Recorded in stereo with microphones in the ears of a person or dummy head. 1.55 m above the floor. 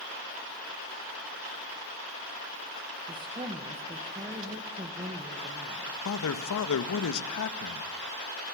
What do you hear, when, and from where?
3.1 s a woman speaking: 25° right (ahead or behind), 1.9 m
6.0 s a man speaking: 70° left (ahead or behind), 1.7 m